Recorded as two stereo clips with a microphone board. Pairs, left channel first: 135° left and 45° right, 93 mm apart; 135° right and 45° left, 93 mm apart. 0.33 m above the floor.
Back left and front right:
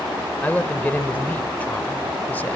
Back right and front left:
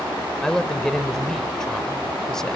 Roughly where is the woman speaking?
Behind left.